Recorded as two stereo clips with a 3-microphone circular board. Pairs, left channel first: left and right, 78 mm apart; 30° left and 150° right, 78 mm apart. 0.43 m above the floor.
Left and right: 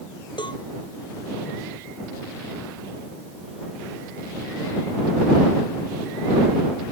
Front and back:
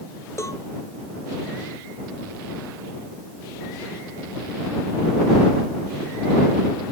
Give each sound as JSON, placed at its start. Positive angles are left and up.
{"t": 0.4, "sound": "a cowbell", "azimuth_deg": 80}